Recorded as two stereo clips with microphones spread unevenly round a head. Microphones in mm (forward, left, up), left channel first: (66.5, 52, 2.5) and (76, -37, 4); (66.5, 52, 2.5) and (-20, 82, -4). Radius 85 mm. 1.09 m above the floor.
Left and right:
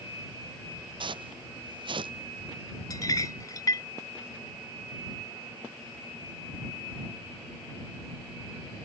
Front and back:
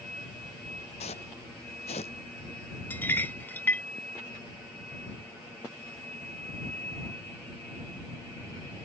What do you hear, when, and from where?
1.0 s footsteps: 60° right
2.9 s a clink: 50° left